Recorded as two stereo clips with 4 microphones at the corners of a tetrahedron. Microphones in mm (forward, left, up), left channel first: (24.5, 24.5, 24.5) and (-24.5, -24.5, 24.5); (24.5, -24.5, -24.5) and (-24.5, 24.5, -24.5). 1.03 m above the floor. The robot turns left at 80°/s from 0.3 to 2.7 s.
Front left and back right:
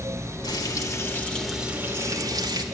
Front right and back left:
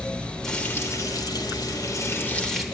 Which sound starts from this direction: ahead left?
Frying, at 0.4 s.